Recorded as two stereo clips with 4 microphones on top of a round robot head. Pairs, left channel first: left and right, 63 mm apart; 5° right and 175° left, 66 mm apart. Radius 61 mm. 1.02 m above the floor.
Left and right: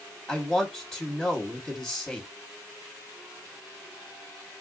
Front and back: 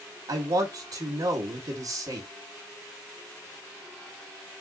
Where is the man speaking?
Straight behind, 1.4 m.